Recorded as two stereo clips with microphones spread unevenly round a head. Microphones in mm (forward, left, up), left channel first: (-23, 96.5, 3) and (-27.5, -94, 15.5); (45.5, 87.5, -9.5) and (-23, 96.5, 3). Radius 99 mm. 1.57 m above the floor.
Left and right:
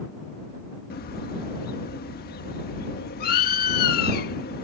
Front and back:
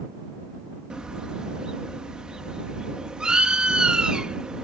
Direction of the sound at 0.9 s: 110° left.